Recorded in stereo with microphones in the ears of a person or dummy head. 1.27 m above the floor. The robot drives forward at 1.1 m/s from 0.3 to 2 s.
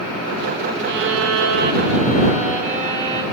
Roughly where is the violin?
Right.